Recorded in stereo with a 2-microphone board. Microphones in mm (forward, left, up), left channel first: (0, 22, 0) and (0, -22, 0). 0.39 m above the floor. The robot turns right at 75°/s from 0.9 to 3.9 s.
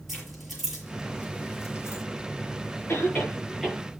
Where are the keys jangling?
5° right (ahead or behind), 6.5 m; by 2.0 s 75° left (ahead or behind), 6.5 m.